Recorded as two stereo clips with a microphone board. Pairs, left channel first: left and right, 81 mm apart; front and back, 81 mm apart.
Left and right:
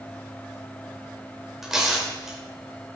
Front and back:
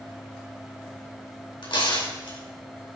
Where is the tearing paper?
5° right, 4.5 m.